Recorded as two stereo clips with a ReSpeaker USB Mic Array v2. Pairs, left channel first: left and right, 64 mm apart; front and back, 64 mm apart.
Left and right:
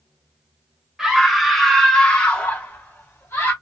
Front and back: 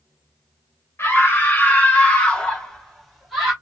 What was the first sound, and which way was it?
A scream, 10° right.